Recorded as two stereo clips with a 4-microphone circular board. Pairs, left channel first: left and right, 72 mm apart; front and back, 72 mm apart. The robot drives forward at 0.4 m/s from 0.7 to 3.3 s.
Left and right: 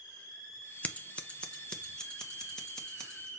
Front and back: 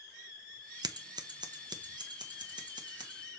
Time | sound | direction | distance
0.8 | scissors | 160° left | 0.6 m